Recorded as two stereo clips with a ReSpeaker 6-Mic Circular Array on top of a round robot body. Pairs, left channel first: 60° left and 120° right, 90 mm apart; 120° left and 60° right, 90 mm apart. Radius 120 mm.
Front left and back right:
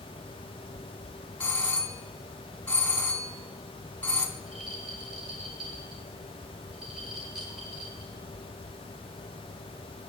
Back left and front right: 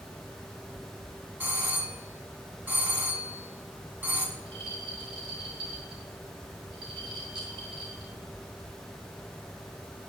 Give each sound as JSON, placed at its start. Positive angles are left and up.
{"t": 1.4, "sound": "a doorbell", "azimuth_deg": -5, "distance_m": 1.9}
{"t": 4.4, "sound": "a rattle", "azimuth_deg": -35, "distance_m": 4.0}